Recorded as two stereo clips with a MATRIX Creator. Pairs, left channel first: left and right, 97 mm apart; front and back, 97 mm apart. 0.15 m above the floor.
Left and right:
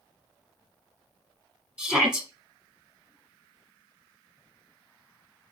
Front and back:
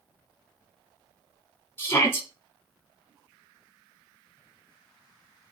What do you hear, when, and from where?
1.8 s a shout: 20° right, 1.3 m